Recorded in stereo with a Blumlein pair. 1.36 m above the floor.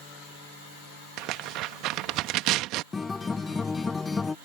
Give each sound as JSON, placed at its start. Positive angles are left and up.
{"t": 1.2, "sound": "tearing paper", "azimuth_deg": -40}
{"t": 2.9, "sound": "a guitar", "azimuth_deg": 10}